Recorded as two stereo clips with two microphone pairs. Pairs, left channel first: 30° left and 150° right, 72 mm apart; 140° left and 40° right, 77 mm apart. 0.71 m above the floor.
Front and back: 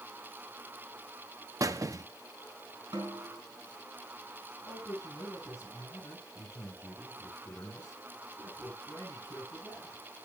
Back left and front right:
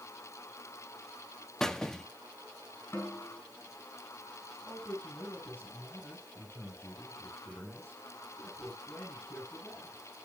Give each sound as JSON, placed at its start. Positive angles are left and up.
{"t": 1.6, "sound": "a squeak", "azimuth_deg": -140, "distance_m": 0.7}
{"t": 2.9, "sound": "a snare drum", "azimuth_deg": -160, "distance_m": 4.0}
{"t": 4.6, "sound": "a man speaking", "azimuth_deg": 85, "distance_m": 8.0}